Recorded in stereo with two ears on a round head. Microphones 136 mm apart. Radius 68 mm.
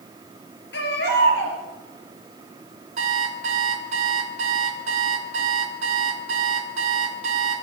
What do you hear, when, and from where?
0.7 s a baby crying: 85° left, 4 m
3.0 s an alarm clock: 50° right (ahead or behind), 2.5 m